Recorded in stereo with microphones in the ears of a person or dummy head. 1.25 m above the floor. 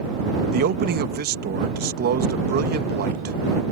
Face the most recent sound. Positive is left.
turn(degrees=-45)  # may be behind; listen again after turning